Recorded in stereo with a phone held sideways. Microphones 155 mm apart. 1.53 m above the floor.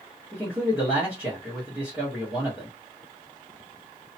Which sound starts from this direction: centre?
A man speaking, at 0.3 s.